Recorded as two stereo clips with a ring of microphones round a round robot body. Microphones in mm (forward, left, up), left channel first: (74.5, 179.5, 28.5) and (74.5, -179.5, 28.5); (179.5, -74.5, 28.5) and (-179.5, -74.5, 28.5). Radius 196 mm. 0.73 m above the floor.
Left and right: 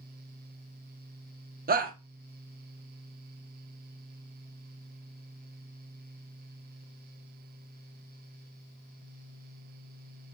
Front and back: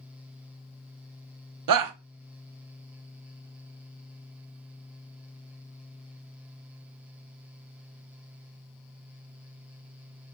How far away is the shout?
About 1.1 m.